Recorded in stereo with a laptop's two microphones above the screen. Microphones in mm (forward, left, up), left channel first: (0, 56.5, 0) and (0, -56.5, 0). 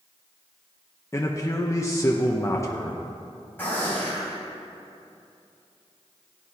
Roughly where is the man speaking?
Left.